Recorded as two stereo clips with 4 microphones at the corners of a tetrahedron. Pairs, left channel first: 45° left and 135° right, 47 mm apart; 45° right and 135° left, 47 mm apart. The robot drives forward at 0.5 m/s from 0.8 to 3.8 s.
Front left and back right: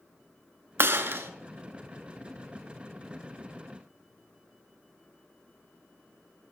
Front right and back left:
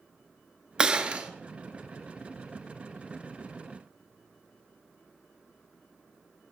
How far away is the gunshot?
About 0.6 m.